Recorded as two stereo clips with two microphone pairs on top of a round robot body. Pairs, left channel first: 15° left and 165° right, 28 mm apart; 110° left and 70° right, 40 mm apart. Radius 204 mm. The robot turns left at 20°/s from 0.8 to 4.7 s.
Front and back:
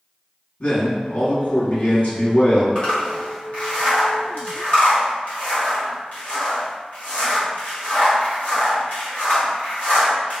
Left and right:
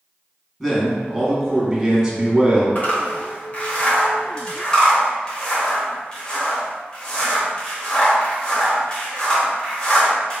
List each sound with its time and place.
0.6 s a man speaking: 25° left, 1.7 m; by 2.6 s 10° right, 1.7 m
2.8 s a zipper: 85° left, 1.9 m; by 10.4 s 50° left, 1.9 m